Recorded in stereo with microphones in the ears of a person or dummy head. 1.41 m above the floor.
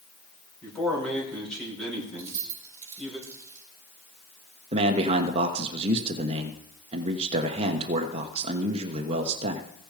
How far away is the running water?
I don't hear running water.